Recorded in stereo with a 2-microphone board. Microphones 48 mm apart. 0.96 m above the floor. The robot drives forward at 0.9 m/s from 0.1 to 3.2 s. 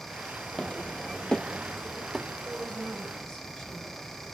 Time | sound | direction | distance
0.5 | footsteps | 25° left (ahead or behind) | 1.4 m
2.5 | a woman speaking | 15° left (ahead or behind) | 3.5 m